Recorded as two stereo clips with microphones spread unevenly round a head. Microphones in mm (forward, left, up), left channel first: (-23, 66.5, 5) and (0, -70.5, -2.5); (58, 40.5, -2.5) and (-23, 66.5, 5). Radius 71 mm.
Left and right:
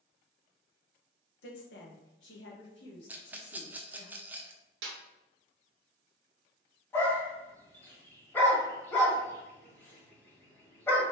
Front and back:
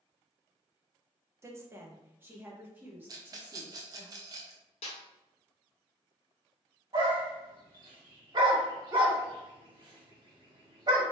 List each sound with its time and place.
1.4 s a woman speaking: 105° left, 1.0 m; by 4.1 s 90° left, 2.5 m
3.1 s a rattle: 150° right, 0.6 m
4.8 s a snare drum: 65° right, 0.9 m
6.9 s a dog barking: 170° left, 1.6 m